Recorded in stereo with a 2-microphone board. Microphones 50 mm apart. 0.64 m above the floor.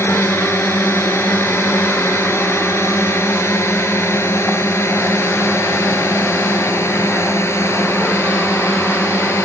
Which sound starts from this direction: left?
A drone, at 0.0 s.